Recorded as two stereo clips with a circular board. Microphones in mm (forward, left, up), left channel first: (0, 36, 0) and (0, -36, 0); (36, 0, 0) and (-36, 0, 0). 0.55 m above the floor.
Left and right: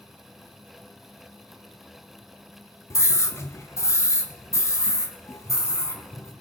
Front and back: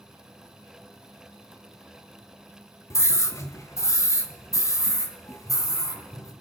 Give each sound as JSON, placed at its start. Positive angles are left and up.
{"t": 2.9, "sound": "a scream", "azimuth_deg": 45, "distance_m": 1.8}